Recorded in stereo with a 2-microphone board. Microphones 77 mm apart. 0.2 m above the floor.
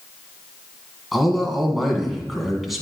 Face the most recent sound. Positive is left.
turn(degrees=0)  # may be behind; listen again after turning